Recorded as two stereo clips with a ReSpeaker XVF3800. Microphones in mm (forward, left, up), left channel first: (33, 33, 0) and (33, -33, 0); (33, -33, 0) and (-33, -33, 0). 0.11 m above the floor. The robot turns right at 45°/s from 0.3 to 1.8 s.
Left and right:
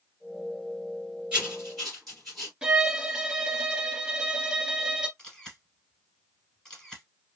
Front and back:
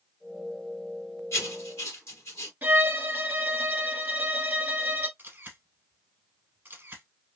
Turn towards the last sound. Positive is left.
turn(degrees=160)